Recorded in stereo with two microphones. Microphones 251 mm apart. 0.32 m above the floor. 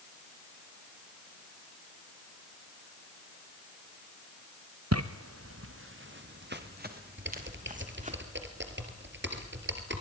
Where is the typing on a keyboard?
45° right (ahead or behind), 3 m.